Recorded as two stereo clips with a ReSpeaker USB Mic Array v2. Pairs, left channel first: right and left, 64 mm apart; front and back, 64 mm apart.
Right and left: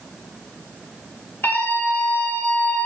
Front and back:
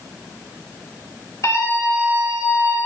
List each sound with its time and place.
1.4 s a scream: 35° right, 5 m; by 2.9 s 25° right, 5 m